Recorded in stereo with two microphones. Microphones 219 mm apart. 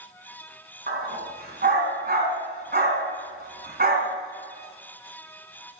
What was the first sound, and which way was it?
A dog barking, 45° right (ahead or behind).